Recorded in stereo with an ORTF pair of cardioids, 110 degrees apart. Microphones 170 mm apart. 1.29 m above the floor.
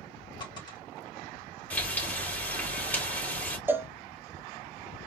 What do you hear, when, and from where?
0.4 s a dropped coin: 30° left, 1.9 m
1.7 s frying: 10° left, 2 m
3.7 s a cowbell: 10° right, 0.5 m